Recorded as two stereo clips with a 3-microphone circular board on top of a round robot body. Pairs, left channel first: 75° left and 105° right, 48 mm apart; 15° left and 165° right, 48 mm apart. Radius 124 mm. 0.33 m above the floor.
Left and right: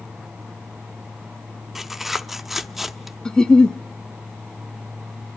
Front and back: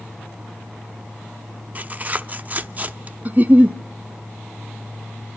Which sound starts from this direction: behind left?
A giggle, at 3.2 s.